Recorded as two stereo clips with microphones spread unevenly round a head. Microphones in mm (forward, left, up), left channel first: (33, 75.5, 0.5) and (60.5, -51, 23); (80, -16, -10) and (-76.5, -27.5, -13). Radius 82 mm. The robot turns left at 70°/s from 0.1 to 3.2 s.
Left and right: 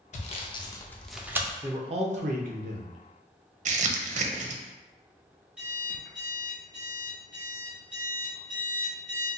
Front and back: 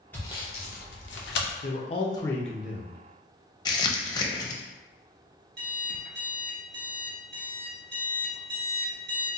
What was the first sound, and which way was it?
Sawing, 85° left.